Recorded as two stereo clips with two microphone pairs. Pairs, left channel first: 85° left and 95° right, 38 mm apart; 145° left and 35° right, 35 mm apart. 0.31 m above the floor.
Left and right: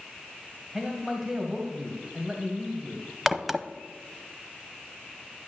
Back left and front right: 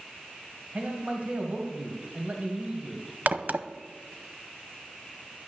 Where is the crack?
10° right, 0.7 m.